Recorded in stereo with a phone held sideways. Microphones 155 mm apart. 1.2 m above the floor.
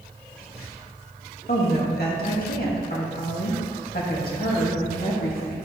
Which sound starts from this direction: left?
A woman speaking, at 1.5 s.